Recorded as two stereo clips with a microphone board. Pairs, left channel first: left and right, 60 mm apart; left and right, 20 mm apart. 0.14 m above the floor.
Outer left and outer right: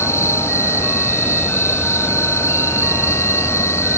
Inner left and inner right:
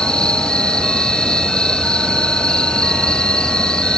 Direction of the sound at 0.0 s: 50° left (ahead or behind).